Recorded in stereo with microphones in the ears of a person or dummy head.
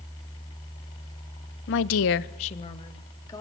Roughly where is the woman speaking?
Left.